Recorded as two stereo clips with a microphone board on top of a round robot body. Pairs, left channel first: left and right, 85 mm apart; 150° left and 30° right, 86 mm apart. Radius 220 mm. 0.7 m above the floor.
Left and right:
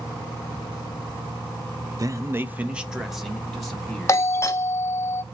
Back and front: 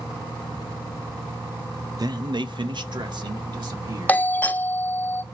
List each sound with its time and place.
2.0 s a man speaking: 55° right, 0.7 m; by 4.2 s 10° left, 1.9 m
4.1 s a doorbell: 100° left, 0.9 m